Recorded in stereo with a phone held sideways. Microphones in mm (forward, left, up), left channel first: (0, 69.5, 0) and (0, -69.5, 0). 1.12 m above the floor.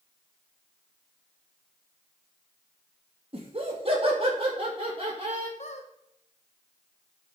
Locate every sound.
3.3 s laughter: 45° right (ahead or behind), 2 m
5.6 s a squeak: 55° left (ahead or behind), 1.2 m